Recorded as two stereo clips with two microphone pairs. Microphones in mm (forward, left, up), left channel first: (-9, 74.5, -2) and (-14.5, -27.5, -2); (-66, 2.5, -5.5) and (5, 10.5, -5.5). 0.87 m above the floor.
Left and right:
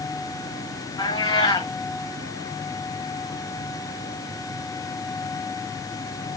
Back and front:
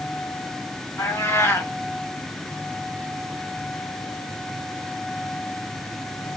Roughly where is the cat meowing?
Behind left.